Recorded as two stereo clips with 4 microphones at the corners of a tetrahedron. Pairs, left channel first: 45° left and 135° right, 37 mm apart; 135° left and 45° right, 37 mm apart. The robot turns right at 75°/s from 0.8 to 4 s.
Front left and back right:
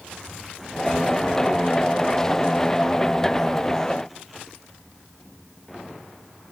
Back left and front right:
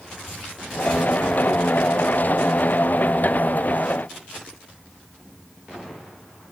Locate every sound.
Only background noise.